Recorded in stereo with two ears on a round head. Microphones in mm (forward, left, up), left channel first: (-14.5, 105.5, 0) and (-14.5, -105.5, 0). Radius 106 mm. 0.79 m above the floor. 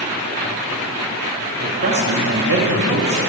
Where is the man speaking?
40° right (ahead or behind), 2.0 m; by 3.2 s 45° right (ahead or behind), 1.8 m.